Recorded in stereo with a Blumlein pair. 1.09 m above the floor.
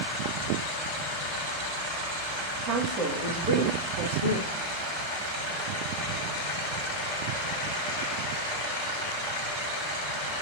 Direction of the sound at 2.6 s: 35° right.